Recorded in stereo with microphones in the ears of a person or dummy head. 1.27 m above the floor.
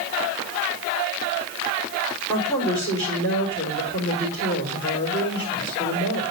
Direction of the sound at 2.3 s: 20° left (ahead or behind).